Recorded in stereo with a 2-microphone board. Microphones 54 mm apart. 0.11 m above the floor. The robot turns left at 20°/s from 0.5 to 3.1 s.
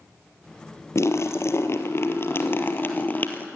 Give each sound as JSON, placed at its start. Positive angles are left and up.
{"t": 0.9, "sound": "a splash", "azimuth_deg": 85, "distance_m": 1.9}